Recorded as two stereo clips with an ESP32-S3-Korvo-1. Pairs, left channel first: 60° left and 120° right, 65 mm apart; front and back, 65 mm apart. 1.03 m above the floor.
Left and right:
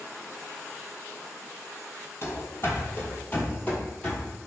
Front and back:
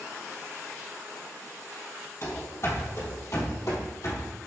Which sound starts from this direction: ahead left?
Running footsteps, at 2.2 s.